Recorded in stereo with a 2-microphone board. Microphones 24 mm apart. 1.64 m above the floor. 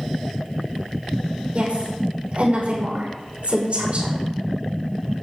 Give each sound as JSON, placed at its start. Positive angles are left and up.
{"t": 1.5, "sound": "a woman speaking", "side_deg": -50, "distance_m": 5.5}